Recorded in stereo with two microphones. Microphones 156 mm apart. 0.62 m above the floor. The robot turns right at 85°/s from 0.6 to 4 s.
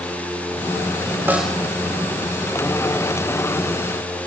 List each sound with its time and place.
1.3 s a snare drum: 15° right (ahead or behind), 3 m; by 1.6 s 10° left (ahead or behind), 3 m